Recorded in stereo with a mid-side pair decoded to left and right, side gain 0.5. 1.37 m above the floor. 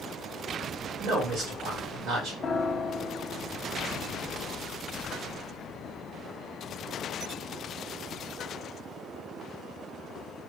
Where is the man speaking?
65° right, 2 m.